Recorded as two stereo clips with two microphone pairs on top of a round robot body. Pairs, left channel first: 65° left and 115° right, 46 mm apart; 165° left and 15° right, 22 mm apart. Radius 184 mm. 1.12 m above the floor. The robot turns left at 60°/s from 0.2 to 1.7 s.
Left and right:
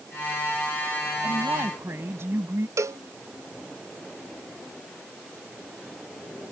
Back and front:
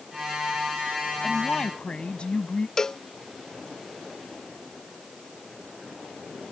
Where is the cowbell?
130° right.